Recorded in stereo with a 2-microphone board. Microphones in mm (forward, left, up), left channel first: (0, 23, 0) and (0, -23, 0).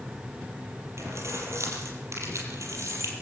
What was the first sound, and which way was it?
Keys jangling, 70° right (ahead or behind).